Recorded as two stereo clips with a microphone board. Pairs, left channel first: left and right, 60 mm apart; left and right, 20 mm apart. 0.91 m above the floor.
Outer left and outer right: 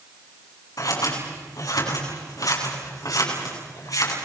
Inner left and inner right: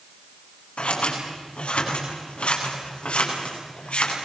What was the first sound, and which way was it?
Scissors, 80° left.